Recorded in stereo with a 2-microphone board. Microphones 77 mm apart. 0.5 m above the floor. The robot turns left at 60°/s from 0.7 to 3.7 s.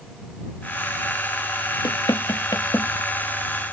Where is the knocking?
70° left (ahead or behind); by 2.9 s 35° left (ahead or behind).